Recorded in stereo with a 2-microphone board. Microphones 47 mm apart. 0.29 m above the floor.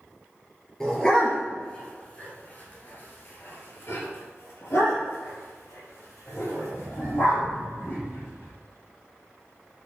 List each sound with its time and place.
0.8 s a dog barking: 10° left (ahead or behind), 2.5 m; by 8.5 s 85° left, 4.5 m